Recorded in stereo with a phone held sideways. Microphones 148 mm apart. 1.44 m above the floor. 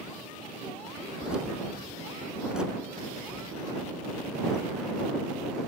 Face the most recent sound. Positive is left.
turn(degrees=-5)  # may be behind; listen again after turning